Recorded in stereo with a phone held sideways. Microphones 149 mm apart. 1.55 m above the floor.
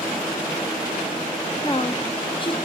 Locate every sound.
1.6 s a woman speaking: 35° left (ahead or behind), 1.2 m